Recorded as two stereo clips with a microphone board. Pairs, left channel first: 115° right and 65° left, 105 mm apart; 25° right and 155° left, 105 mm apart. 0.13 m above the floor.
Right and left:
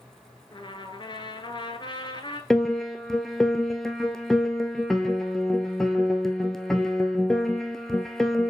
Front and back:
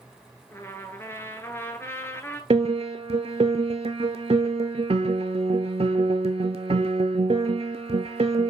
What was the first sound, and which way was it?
A trumpet, 85° right.